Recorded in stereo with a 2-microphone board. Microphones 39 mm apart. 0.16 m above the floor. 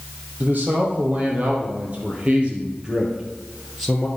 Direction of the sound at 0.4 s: 50° right (ahead or behind).